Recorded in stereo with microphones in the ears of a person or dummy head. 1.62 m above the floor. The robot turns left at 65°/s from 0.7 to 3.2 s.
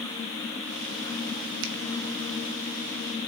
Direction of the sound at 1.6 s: 65° right (ahead or behind).